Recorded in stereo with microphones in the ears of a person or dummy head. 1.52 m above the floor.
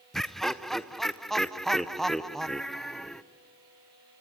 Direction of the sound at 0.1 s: Centre (ahead or behind).